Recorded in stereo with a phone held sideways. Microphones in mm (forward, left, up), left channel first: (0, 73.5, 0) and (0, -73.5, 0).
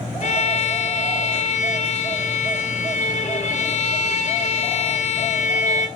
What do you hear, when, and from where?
0.2 s a violin: 55° left (ahead or behind), 0.5 m